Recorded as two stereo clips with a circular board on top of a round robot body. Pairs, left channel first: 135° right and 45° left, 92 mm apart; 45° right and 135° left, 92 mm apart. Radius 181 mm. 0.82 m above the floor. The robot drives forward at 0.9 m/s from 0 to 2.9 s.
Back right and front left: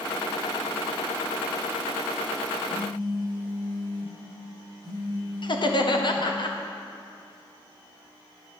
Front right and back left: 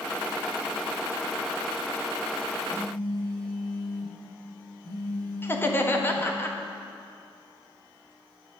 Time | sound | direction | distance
2.7 | a phone buzzing | straight behind | 3 m
5.4 | laughter | 110° right | 1.7 m